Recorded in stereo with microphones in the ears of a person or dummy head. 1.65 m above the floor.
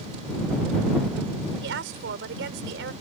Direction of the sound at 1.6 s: 75° right (ahead or behind).